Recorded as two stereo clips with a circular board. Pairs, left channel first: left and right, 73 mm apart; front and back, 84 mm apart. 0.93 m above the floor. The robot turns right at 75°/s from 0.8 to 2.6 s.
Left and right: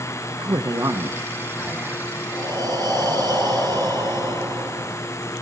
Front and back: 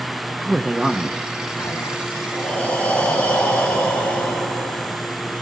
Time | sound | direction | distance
0.4 | a man speaking | 105° right | 1.2 m
2.3 | breathing | 95° right | 5 m